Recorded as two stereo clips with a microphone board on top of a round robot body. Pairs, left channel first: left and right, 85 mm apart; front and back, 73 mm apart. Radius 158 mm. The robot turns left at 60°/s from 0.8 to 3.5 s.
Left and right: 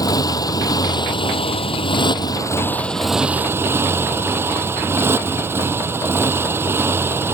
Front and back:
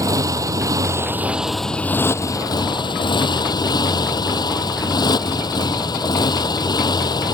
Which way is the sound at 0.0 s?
135° left.